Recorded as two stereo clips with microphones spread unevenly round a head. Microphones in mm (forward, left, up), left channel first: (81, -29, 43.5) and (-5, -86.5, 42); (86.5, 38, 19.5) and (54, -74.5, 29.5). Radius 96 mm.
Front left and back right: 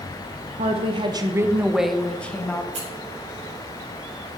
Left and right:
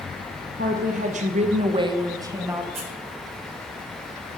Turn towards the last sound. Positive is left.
turn(degrees=-165)